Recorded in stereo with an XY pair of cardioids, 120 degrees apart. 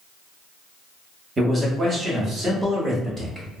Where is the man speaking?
25° right, 1.1 m.